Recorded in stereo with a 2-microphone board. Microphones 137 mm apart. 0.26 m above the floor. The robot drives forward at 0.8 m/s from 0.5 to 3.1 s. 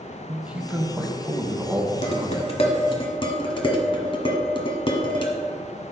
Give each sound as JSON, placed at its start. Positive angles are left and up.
{"t": 0.3, "sound": "a man speaking", "side_deg": -10, "distance_m": 0.9}
{"t": 2.0, "sound": "dishes clattering", "side_deg": 50, "distance_m": 1.2}